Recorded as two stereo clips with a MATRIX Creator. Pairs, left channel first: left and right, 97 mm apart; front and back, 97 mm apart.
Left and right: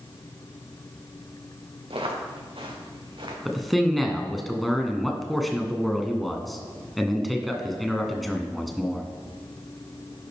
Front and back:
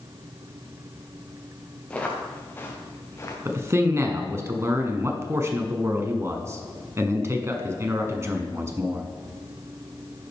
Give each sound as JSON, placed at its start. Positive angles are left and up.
{"t": 1.9, "sound": "footsteps", "azimuth_deg": -75, "distance_m": 3.5}
{"t": 3.5, "sound": "a man speaking", "azimuth_deg": 180, "distance_m": 1.1}